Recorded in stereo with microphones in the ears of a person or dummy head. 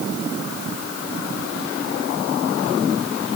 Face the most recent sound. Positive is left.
No sound to turn to.